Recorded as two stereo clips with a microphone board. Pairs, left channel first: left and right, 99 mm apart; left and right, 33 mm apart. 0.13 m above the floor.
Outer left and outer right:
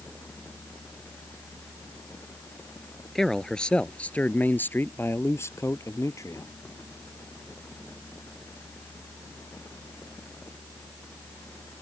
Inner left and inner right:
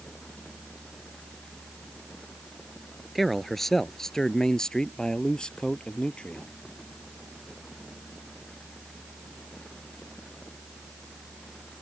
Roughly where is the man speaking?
Centre.